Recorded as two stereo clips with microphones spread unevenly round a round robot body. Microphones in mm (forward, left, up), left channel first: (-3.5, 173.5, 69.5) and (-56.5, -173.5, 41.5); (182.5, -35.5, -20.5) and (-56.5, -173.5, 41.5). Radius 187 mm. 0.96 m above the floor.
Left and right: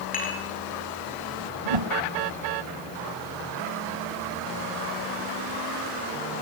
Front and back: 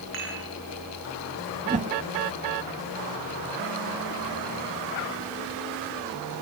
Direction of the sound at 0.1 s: 150° left.